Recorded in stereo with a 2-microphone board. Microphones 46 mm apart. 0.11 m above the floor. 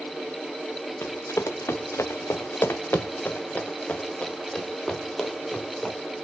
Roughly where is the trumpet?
No trumpet in this recording.